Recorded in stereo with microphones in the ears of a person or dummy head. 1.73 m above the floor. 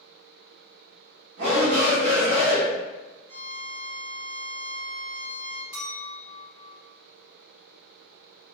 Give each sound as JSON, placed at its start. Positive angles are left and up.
{"t": 1.4, "sound": "a shout", "side_deg": -65, "distance_m": 1.4}
{"t": 3.3, "sound": "a violin", "side_deg": -20, "distance_m": 1.5}
{"t": 5.7, "sound": "a clink", "side_deg": -15, "distance_m": 1.9}